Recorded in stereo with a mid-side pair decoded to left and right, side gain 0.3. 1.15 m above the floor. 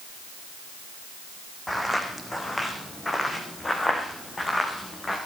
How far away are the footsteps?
About 4.5 m.